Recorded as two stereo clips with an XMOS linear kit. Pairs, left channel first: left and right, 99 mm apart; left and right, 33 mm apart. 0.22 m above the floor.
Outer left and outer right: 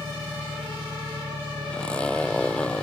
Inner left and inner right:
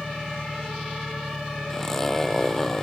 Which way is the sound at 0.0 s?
65° right (ahead or behind).